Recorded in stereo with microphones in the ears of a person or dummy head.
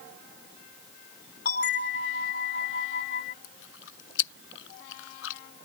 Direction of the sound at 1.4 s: 55° left (ahead or behind).